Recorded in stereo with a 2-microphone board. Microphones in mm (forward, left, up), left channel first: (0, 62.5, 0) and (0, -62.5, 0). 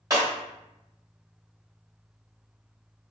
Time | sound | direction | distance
0.1 | breaking glass | 30° right (ahead or behind) | 1.7 m